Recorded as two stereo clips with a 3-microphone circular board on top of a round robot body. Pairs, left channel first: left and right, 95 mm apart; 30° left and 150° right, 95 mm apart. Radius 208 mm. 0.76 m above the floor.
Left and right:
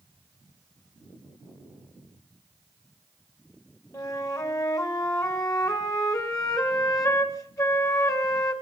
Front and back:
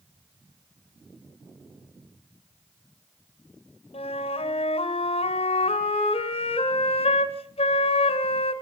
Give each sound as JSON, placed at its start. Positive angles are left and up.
{"t": 3.9, "sound": "a flute", "azimuth_deg": 30, "distance_m": 1.4}